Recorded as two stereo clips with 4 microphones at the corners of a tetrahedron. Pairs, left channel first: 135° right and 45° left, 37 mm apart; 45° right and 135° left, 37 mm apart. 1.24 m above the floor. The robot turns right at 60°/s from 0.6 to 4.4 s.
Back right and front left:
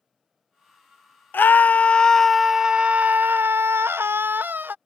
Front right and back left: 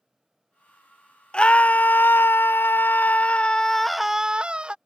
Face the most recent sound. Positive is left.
turn(degrees=75)